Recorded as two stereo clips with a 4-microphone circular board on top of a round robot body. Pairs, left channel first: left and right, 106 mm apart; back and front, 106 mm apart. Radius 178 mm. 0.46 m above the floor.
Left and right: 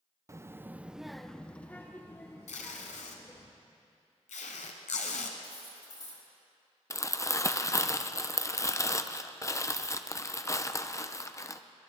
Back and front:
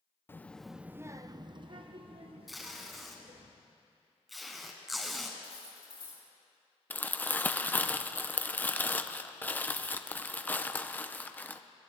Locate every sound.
0.3 s a child speaking: 125° right, 0.8 m; by 3.5 s 25° left, 1.9 m
2.5 s tape being pulled: 90° left, 0.9 m
5.4 s cutlery clinking: 140° left, 3.5 m
6.9 s crumpling: 120° left, 0.8 m